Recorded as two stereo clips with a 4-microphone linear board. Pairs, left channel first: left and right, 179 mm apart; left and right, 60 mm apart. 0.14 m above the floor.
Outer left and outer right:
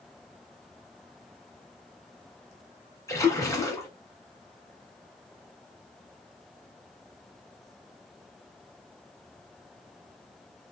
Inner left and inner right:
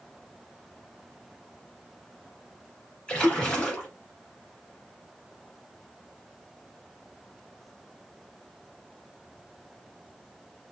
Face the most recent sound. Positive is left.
turn(degrees=20)  # may be behind; listen again after turning